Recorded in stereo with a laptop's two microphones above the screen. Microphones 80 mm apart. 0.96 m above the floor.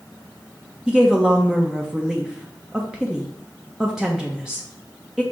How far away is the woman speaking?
About 0.5 m.